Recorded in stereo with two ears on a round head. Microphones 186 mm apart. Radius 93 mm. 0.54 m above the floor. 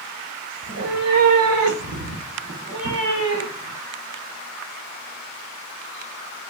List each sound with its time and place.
0.6 s a cat meowing: 70° right (ahead or behind), 1.1 m; by 3.8 s 55° right (ahead or behind), 2.5 m